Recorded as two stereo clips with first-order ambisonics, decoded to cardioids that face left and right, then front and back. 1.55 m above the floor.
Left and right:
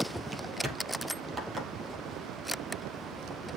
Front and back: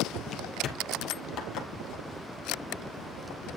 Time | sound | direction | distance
0.3 | footsteps | 20° right | 1.8 m